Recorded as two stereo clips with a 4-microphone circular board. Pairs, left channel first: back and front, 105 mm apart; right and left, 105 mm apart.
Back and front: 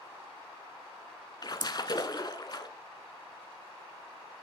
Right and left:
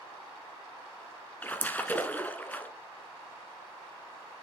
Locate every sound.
1.4 s a splash: 160° right, 0.8 m